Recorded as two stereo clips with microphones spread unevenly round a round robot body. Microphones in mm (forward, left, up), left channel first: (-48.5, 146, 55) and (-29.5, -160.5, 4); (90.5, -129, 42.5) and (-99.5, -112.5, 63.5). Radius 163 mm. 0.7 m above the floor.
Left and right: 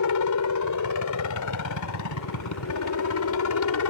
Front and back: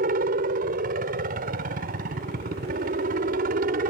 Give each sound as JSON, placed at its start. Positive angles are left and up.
{"t": 0.0, "sound": "a helicopter", "azimuth_deg": 120}